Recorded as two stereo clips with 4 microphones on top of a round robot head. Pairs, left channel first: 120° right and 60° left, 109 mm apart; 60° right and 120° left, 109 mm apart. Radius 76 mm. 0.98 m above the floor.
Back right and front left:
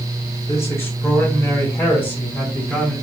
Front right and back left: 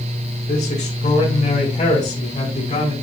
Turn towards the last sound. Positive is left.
turn(degrees=-45)